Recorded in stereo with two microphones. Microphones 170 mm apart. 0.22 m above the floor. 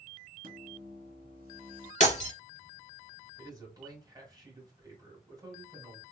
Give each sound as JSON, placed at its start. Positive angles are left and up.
{"t": 0.4, "sound": "a microwave", "side_deg": -60, "distance_m": 1.8}
{"t": 2.0, "sound": "breaking glass", "side_deg": 45, "distance_m": 1.2}
{"t": 3.4, "sound": "a man speaking", "side_deg": -25, "distance_m": 1.6}